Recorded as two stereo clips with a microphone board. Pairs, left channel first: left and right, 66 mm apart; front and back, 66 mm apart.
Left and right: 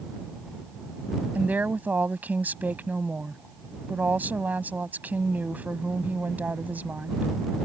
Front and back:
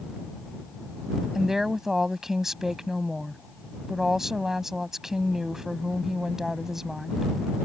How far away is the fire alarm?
No fire alarm in this recording.